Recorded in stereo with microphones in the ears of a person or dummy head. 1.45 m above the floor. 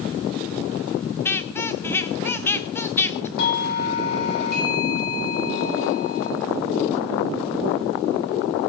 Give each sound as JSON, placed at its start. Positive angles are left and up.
{"t": 1.2, "sound": "a squeak", "side_deg": 15, "distance_m": 0.7}
{"t": 3.4, "sound": "a doorbell", "side_deg": 50, "distance_m": 7.5}